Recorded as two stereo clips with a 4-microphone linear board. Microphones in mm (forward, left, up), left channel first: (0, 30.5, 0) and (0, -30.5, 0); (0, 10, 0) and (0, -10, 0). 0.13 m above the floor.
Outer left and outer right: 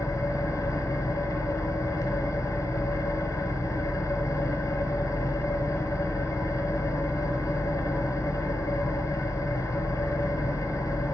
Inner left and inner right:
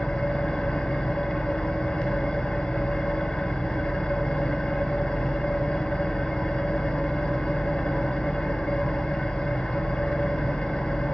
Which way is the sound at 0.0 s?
65° left (ahead or behind).